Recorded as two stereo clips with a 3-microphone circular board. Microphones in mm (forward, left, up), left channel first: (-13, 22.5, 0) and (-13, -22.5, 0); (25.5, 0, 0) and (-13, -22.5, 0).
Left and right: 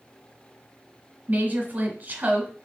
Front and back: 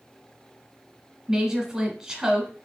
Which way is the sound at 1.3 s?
85° right.